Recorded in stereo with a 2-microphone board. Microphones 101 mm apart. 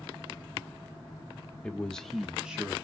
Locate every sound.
1.6 s a man speaking: 10° left (ahead or behind), 1.0 m; by 2.8 s 10° right (ahead or behind), 1.0 m